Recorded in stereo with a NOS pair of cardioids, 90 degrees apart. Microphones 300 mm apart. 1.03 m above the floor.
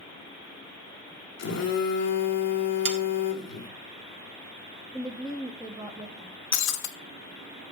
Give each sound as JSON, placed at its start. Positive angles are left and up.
{"t": 1.4, "sound": "a phone buzzing", "azimuth_deg": 60, "distance_m": 1.5}
{"t": 2.9, "sound": "sawing", "azimuth_deg": -40, "distance_m": 1.4}
{"t": 4.9, "sound": "a woman speaking", "azimuth_deg": -5, "distance_m": 1.3}
{"t": 6.5, "sound": "breaking glass", "azimuth_deg": 70, "distance_m": 1.0}